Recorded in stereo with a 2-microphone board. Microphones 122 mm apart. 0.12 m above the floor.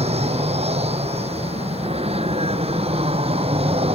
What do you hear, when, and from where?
0.0 s an aircraft: 60° right (ahead or behind); by 4.0 s 55° right (ahead or behind)